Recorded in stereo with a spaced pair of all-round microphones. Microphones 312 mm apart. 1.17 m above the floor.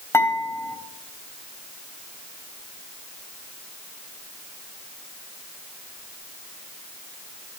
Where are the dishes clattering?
10° left (ahead or behind), 4.5 m.